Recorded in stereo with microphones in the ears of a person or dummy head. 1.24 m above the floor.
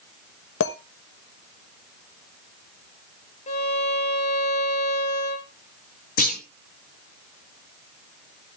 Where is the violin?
40° left (ahead or behind), 1.3 m.